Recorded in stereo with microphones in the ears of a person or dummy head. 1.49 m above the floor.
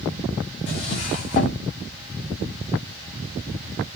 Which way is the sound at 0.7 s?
30° left (ahead or behind).